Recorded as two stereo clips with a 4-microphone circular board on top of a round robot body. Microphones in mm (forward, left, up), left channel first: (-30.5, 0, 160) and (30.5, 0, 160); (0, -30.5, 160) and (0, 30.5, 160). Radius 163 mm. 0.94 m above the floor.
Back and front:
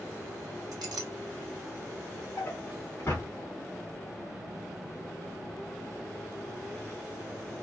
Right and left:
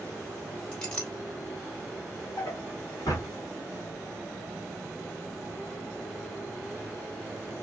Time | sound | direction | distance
0.7 | a clink | 15° right | 0.8 m
2.4 | a drawer | 120° right | 1.9 m